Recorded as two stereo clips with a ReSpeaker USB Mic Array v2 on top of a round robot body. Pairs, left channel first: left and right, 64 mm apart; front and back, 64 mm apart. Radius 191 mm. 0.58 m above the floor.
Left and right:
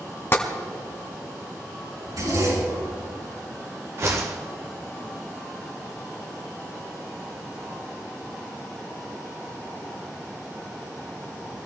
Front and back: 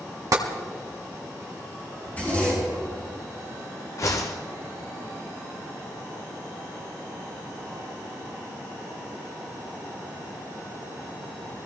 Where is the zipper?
65° right, 7 m.